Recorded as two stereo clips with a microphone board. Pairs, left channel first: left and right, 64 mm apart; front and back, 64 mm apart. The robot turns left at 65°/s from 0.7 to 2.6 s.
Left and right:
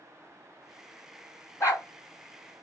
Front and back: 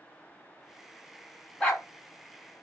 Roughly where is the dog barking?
Ahead left.